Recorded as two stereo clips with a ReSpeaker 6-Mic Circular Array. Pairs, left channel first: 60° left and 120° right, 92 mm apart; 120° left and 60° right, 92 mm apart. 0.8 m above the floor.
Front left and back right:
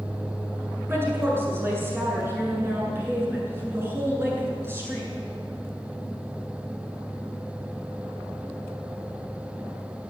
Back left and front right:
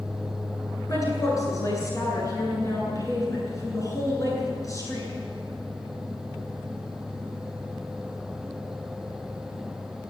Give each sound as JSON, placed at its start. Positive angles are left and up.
{"t": 0.9, "sound": "a woman speaking", "azimuth_deg": 175, "distance_m": 9.0}